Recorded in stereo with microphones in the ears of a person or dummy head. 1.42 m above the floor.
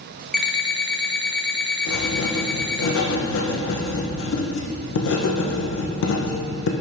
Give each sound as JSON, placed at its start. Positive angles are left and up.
{"t": 0.3, "sound": "an alarm clock", "side_deg": 0, "distance_m": 0.9}
{"t": 1.9, "sound": "writing", "side_deg": 65, "distance_m": 1.1}